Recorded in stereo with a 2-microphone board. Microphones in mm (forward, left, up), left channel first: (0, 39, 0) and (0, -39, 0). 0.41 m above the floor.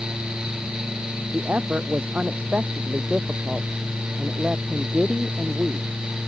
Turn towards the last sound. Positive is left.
turn(degrees=-10)  # may be behind; listen again after turning